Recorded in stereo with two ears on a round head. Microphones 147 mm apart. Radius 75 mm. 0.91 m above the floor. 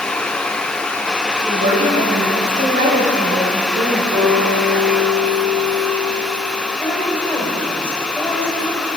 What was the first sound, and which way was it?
A woman speaking, 55° right (ahead or behind).